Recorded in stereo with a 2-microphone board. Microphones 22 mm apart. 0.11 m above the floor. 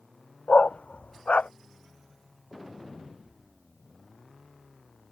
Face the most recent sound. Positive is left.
turn(degrees=80)